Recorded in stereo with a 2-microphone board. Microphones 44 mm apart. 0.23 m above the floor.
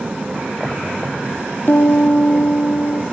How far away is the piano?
About 1.1 m.